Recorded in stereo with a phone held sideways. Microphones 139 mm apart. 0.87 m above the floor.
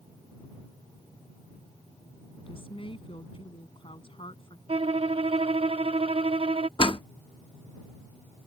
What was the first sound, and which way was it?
A woman speaking, 40° left (ahead or behind).